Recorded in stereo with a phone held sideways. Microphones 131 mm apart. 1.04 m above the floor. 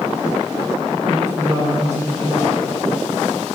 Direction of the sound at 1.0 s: 75° right (ahead or behind).